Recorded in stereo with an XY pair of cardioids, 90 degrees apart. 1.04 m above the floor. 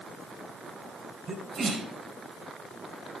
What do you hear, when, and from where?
1.3 s a sneeze: 60° right, 4 m